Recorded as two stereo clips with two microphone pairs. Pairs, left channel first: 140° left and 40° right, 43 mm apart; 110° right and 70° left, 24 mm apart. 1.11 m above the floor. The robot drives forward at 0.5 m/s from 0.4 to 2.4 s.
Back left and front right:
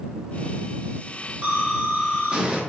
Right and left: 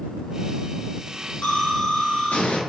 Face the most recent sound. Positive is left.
turn(degrees=-105)